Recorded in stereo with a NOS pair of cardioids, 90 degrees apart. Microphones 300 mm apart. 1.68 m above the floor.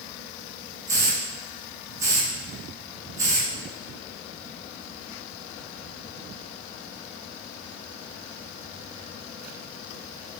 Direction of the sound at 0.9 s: 10° right.